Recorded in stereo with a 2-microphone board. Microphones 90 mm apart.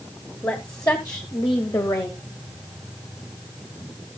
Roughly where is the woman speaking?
Left.